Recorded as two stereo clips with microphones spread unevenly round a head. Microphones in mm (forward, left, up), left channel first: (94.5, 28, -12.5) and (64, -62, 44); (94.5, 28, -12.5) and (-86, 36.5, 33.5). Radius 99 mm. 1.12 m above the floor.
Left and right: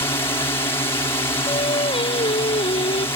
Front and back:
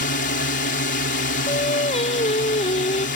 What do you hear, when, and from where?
0.0 s a drone: 25° left
1.5 s singing: 55° left